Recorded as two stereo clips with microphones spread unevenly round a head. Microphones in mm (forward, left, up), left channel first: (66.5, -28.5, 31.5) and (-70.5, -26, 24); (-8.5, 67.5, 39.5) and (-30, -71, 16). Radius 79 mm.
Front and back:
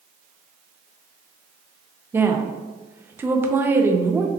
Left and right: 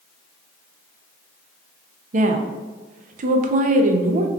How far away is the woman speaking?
About 0.6 m.